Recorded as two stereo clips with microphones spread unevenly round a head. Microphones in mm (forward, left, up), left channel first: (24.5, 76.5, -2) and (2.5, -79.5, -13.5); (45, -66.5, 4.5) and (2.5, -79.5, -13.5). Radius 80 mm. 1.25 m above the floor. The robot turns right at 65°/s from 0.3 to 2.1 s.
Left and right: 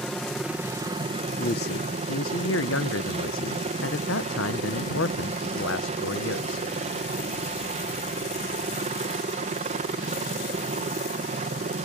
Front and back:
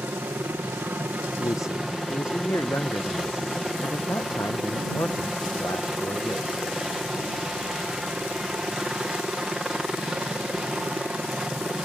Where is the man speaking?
40° left; by 6.7 s 85° left.